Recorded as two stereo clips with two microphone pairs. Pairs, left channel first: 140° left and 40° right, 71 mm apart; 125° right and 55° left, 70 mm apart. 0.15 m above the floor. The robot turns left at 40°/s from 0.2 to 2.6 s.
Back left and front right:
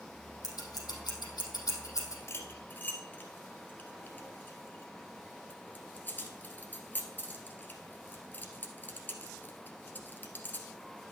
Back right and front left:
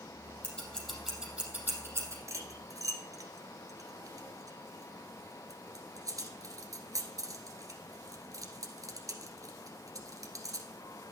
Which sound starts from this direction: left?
Cutlery clinking, at 2.3 s.